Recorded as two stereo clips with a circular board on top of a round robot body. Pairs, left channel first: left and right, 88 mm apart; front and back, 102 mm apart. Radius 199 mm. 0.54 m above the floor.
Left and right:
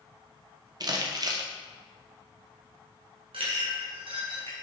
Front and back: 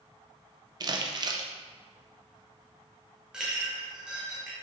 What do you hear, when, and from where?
0.8 s crumpling: 130° right, 0.8 m
3.3 s a clink: 100° right, 1.8 m